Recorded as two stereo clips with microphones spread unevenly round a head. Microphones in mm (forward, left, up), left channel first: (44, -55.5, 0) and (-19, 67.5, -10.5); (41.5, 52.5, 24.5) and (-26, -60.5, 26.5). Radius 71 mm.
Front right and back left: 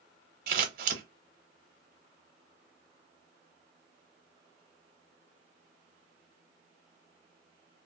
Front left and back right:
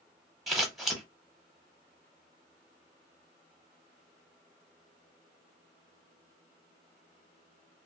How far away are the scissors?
About 0.7 m.